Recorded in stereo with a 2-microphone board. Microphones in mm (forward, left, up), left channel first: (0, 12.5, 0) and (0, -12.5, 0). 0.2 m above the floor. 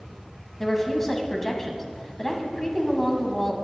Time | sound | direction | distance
0.6 | a woman speaking | 15° left (ahead or behind) | 1.1 m